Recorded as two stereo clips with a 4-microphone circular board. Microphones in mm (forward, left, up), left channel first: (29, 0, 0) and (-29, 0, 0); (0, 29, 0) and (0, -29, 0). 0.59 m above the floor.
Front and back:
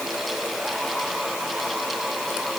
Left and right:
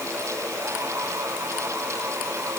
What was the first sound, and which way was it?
Only background noise.